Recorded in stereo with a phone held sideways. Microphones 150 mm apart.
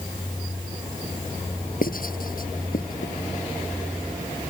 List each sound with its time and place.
1.8 s writing: 70° left (ahead or behind)